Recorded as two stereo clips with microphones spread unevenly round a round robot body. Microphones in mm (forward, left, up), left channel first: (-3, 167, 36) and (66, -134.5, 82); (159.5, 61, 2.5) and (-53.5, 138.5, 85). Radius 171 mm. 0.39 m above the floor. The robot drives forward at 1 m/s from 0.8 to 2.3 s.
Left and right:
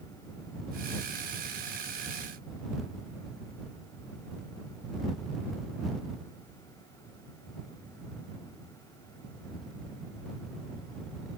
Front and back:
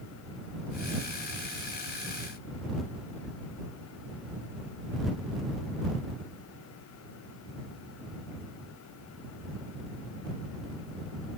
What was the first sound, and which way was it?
Only background noise.